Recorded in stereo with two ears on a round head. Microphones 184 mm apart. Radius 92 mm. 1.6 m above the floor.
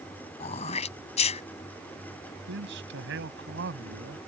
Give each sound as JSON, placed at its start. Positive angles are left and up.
{"t": 0.4, "sound": "throat clearing", "side_deg": 35}
{"t": 2.5, "sound": "a man speaking", "side_deg": -60}